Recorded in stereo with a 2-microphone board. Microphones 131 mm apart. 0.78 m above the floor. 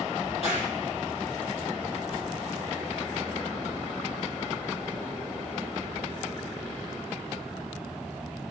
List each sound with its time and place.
0.2 s a crack: 50° left (ahead or behind), 7.5 m